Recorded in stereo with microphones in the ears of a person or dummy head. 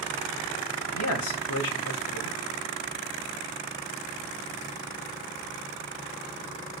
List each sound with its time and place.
0.9 s a man speaking: 90° left, 2 m